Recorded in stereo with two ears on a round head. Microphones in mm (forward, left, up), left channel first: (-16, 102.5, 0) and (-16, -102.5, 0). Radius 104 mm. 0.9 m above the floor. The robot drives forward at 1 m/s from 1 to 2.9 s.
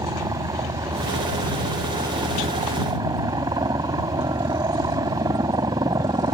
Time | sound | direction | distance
0.0 | a helicopter | 15° right (ahead or behind) | ?